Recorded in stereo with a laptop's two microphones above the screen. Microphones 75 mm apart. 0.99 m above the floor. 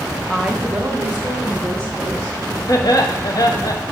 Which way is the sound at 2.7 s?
55° left (ahead or behind).